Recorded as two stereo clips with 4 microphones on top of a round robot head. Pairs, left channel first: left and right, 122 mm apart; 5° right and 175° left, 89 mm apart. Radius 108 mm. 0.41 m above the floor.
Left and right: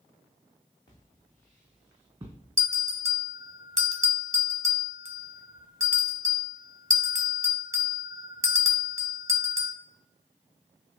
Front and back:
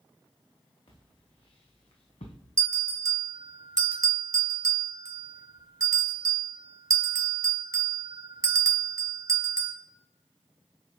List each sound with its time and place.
0.9 s footsteps: 25° left, 1.9 m; by 2.4 s 20° right, 1.6 m
2.6 s a bell: 145° right, 1.3 m